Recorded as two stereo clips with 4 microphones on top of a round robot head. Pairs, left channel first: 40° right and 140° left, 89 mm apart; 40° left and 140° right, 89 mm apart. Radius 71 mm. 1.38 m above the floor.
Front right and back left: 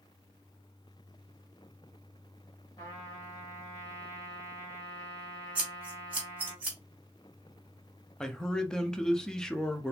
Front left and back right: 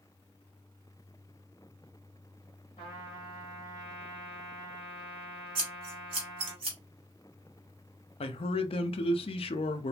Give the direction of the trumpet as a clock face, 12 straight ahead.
12 o'clock.